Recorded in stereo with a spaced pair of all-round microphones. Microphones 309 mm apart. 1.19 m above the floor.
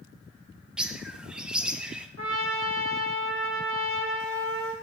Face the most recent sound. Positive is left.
turn(degrees=-45)  # may be behind; listen again after turning